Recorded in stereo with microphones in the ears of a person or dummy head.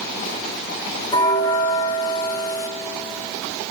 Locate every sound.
1.1 s a bell: 15° left (ahead or behind), 1.0 m